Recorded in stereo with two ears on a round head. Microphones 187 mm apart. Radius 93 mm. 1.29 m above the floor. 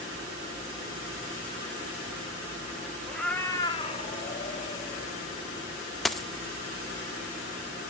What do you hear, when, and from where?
3.1 s a cat meowing: centre (ahead or behind), 1.4 m; by 5.1 s 30° left (ahead or behind), 2.5 m
6.0 s a dropped coin: centre (ahead or behind), 0.6 m